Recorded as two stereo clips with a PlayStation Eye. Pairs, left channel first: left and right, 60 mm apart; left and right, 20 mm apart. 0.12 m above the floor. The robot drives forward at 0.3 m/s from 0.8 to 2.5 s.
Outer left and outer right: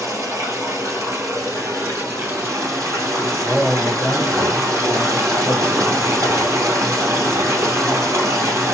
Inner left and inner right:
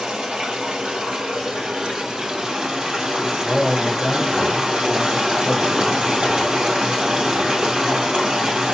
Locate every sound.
0.0 s running water: 60° right (ahead or behind), 2.0 m; by 8.8 s 55° right (ahead or behind), 2 m
3.5 s a man speaking: centre (ahead or behind), 2.5 m